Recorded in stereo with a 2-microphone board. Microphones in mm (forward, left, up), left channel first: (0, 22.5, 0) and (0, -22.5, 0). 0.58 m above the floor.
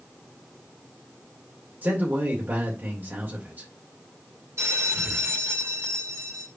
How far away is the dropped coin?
I don't hear a dropped coin.